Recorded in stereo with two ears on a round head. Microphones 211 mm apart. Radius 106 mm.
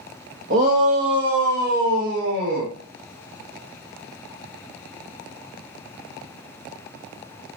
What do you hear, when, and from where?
0.5 s a shout: 40° right (ahead or behind), 1.9 m; by 2.7 s 45° right (ahead or behind), 5 m